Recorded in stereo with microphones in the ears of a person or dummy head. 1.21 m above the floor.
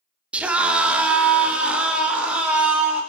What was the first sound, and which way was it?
A scream, 5° right (ahead or behind).